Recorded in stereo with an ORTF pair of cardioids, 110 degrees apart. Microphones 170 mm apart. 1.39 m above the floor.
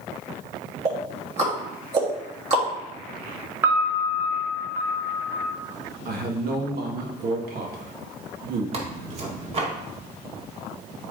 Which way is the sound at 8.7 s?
40° right.